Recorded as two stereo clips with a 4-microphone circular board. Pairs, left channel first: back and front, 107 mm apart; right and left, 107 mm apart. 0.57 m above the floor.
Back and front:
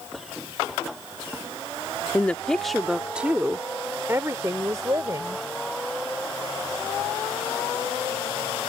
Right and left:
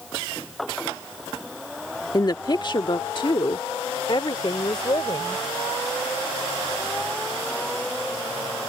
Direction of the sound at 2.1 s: 115° right.